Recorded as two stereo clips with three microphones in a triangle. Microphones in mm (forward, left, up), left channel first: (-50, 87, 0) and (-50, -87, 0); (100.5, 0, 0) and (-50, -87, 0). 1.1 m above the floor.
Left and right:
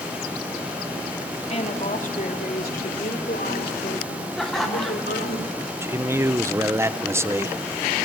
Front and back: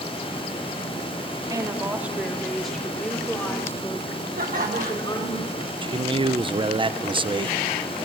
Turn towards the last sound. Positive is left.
turn(degrees=-150)